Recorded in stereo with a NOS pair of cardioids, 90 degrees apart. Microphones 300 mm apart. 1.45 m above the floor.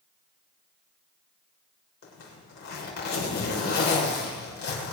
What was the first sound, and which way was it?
A zipper, 65° left.